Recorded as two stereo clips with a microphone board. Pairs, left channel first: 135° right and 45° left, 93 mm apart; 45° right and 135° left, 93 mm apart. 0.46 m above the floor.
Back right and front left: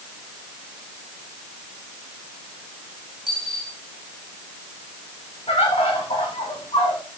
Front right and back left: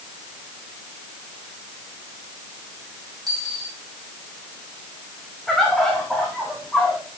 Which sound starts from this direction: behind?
A dropped coin, at 3.3 s.